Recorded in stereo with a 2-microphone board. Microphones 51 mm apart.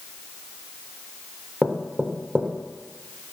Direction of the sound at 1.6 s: 20° right (ahead or behind).